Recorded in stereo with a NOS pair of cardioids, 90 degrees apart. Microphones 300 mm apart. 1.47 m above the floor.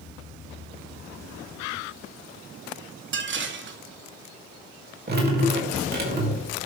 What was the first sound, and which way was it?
Dishes clattering, 40° right.